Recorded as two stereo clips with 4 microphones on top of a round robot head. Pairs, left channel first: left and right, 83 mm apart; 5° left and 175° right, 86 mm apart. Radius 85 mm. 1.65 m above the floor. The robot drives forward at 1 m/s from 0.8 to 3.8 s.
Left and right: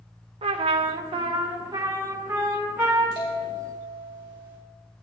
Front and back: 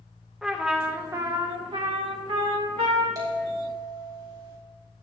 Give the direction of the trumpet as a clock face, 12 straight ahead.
3 o'clock.